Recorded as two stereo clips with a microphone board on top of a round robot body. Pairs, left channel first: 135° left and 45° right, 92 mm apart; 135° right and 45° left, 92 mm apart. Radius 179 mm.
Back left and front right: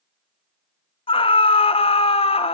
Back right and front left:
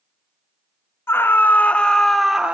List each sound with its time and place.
1.1 s a scream: 160° left, 3 m; by 2.5 s 125° left, 1.9 m